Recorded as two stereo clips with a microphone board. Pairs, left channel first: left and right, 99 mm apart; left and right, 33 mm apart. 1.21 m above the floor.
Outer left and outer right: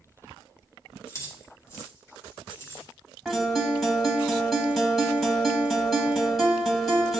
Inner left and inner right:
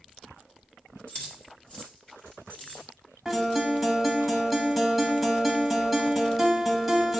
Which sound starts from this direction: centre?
A guitar, at 3.2 s.